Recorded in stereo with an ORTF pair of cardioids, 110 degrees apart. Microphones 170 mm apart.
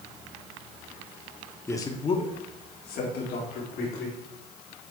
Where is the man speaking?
15° left, 1.3 m; by 4.2 s 80° left, 3 m.